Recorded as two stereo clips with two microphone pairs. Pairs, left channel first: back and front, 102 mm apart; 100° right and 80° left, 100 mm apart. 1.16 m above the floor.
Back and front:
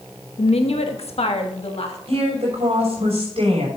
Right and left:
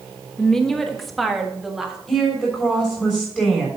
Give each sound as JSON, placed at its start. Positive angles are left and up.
{"t": 0.4, "sound": "a woman speaking", "azimuth_deg": 175, "distance_m": 1.0}
{"t": 2.1, "sound": "a woman speaking", "azimuth_deg": -20, "distance_m": 5.0}